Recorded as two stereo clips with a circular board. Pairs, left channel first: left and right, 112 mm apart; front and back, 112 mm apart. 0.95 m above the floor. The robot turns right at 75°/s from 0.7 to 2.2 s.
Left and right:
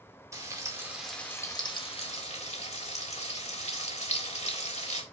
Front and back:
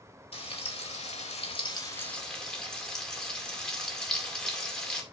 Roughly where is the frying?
Ahead right.